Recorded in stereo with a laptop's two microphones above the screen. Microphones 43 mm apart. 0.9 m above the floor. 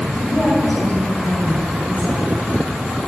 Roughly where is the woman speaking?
Left.